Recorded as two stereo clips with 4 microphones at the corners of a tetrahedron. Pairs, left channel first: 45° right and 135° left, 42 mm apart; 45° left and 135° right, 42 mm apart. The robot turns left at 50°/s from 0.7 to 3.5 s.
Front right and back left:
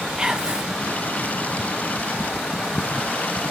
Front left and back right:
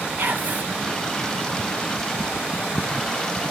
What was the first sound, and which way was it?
Whispering, 155° right.